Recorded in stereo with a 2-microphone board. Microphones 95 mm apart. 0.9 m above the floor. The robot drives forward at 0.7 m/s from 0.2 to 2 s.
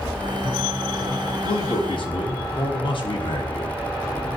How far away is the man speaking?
About 0.9 m.